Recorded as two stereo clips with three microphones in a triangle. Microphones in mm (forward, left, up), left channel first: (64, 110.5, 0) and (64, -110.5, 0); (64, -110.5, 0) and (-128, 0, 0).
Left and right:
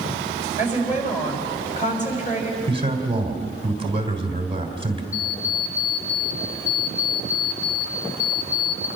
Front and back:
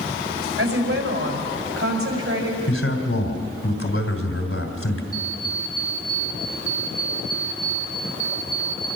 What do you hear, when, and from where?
0.6 s a woman speaking: 145° left, 5 m
2.7 s a man speaking: 25° right, 3 m
5.1 s an alarm clock: 65° left, 2.5 m